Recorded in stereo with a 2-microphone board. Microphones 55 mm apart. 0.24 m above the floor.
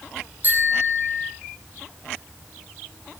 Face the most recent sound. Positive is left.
turn(degrees=-35)  # may be behind; listen again after turning